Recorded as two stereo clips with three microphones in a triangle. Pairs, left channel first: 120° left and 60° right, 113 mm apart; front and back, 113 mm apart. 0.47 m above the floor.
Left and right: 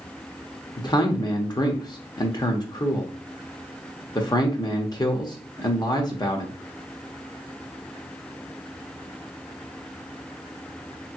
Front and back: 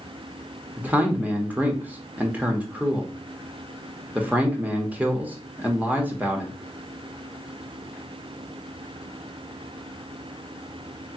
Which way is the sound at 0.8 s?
115° left.